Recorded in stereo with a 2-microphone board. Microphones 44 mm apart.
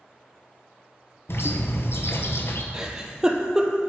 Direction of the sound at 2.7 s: 15° right (ahead or behind).